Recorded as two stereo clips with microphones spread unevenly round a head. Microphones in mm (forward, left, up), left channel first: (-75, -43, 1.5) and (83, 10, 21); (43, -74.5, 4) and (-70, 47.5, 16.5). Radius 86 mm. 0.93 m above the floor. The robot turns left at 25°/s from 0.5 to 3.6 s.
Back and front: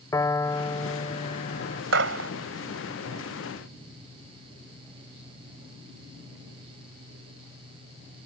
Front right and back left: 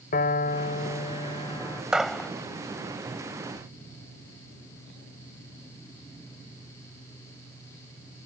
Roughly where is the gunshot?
Ahead left.